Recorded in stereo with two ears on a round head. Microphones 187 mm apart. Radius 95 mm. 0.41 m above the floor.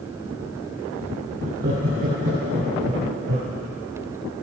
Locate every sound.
1.4 s laughter: 50° right (ahead or behind), 4.5 m; by 3.5 s 35° right (ahead or behind), 5.5 m